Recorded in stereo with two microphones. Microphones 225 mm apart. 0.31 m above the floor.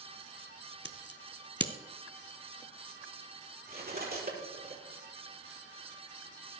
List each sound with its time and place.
0.8 s scissors: 50° left (ahead or behind), 0.9 m
3.7 s cutlery clinking: 45° right (ahead or behind), 5 m